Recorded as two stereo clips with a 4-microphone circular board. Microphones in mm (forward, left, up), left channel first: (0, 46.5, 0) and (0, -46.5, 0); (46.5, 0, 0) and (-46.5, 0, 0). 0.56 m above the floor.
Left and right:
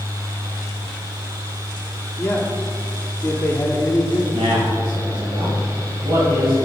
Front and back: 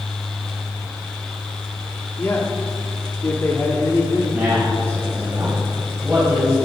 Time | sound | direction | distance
2.2 | a man speaking | 45° left | 1.3 m
4.3 | a man speaking | 115° right | 2.5 m